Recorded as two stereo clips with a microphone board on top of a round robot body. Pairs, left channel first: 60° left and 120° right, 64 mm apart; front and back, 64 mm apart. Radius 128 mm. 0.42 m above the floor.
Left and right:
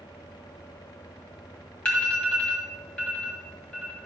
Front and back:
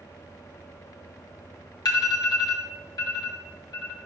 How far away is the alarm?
About 2.5 m.